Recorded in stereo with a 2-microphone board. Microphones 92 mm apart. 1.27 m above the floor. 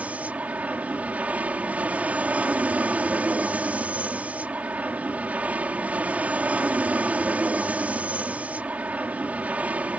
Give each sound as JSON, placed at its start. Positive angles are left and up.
{"t": 0.0, "sound": "an aircraft", "side_deg": -15}